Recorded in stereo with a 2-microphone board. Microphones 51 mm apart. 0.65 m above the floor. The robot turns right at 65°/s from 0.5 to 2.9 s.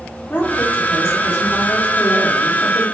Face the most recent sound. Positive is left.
turn(degrees=-155)